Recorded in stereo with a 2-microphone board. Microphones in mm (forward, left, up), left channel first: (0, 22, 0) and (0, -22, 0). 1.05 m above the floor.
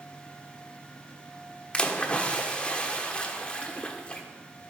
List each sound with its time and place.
1.7 s a splash: 20° left (ahead or behind), 1.2 m